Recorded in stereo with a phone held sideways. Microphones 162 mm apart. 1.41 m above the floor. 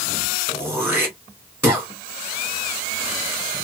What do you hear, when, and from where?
0.5 s throat clearing: 15° right (ahead or behind), 1.4 m